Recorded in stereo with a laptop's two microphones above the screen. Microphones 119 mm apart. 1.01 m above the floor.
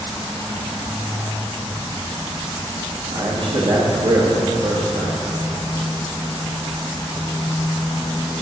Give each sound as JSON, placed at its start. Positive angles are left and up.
{"t": 3.1, "sound": "a man speaking", "side_deg": -55, "distance_m": 1.6}